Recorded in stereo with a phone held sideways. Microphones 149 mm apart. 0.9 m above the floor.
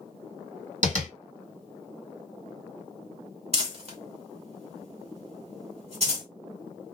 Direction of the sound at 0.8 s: 55° right (ahead or behind).